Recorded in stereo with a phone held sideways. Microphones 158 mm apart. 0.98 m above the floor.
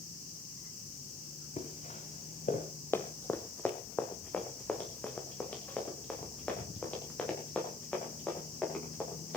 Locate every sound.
1.6 s footsteps: 45° left (ahead or behind), 5.5 m; by 2.6 s 50° left (ahead or behind), 5.5 m
2.9 s running footsteps: 15° left (ahead or behind), 1.7 m; by 9.4 s 10° left (ahead or behind), 11.5 m